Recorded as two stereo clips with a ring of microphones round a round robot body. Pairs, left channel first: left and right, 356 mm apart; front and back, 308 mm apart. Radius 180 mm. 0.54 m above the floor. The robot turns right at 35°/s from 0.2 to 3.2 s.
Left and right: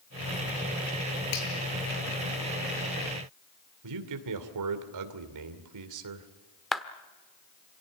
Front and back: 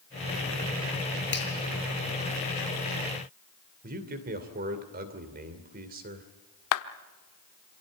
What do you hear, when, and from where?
1.3 s a finger snap: 55° left, 7.5 m; by 1.5 s 60° left, 7.5 m
3.8 s a man speaking: 120° right, 2.5 m
6.7 s a clap: straight ahead, 1.1 m